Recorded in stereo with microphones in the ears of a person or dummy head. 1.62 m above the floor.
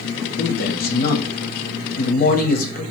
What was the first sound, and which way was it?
A man speaking, 45° left (ahead or behind).